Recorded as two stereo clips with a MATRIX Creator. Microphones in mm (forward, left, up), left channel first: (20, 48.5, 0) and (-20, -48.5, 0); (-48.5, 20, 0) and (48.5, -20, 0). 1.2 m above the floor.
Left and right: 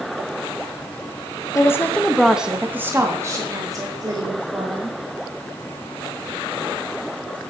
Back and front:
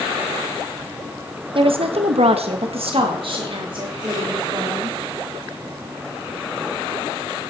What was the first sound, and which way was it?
A woman speaking, 10° left.